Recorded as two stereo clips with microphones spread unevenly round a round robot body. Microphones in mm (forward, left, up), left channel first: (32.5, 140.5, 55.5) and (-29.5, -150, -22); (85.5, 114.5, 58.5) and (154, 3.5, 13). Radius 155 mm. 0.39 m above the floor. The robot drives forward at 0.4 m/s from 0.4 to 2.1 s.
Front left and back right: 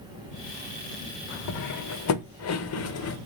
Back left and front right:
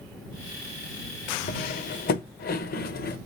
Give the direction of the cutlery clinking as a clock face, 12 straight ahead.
8 o'clock.